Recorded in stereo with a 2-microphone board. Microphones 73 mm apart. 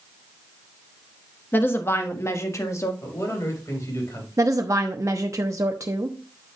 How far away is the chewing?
No chewing in this recording.